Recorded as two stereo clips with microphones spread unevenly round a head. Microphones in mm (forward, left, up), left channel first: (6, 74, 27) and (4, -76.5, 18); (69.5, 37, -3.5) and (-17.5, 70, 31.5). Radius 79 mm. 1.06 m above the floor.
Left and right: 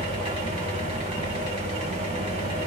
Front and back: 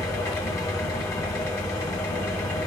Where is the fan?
55° right, 1.9 m.